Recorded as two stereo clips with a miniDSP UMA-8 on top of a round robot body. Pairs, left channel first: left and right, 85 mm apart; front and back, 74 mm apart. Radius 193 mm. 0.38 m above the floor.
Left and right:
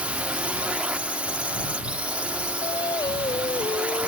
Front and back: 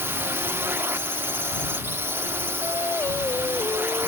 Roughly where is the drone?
Behind right.